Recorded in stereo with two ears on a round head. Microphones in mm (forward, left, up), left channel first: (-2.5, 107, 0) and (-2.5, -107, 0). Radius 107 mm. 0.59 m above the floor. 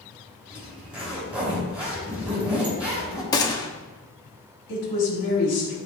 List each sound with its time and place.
0.5 s a zipper: 5° right (ahead or behind), 3 m
3.3 s a gunshot: 15° left (ahead or behind), 0.8 m
4.7 s a woman speaking: 55° left (ahead or behind), 4 m